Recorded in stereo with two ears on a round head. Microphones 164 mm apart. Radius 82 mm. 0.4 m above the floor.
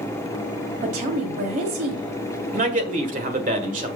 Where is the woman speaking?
45° right (ahead or behind), 1.7 m.